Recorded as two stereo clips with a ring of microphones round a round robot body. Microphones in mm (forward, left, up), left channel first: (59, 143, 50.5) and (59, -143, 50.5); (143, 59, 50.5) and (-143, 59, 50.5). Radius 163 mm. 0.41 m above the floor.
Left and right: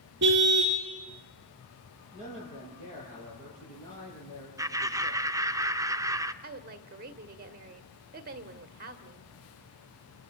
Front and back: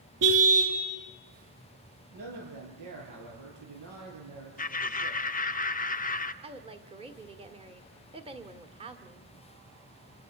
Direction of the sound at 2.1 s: 160° left.